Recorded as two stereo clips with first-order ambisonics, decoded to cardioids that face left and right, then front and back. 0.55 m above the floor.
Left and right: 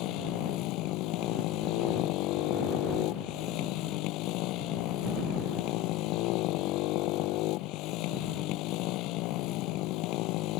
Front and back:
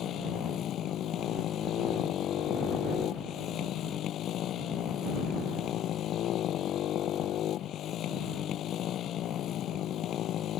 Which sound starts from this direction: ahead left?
A motorcycle, at 0.0 s.